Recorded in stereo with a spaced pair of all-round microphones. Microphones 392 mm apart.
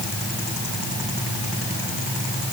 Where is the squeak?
No squeak in this recording.